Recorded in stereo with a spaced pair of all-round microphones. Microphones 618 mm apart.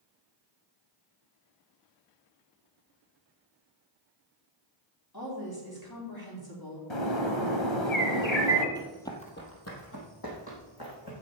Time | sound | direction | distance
5.1 | a woman speaking | 35° left (ahead or behind) | 3.5 m
6.9 | a bird | 45° left (ahead or behind) | 1.5 m
8.8 | running footsteps | 5° right (ahead or behind) | 1.7 m